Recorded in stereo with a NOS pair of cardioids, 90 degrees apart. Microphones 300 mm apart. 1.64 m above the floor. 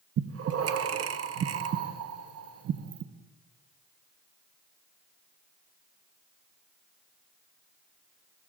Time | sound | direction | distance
0.2 | breathing | 55° right | 1.1 m